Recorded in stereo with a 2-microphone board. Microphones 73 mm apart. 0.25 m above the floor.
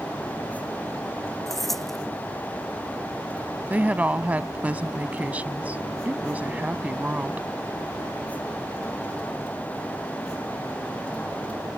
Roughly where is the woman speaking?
Right.